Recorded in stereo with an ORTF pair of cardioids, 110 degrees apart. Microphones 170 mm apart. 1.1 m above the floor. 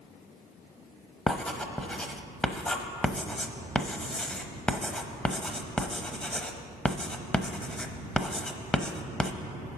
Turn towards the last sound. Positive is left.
turn(degrees=5)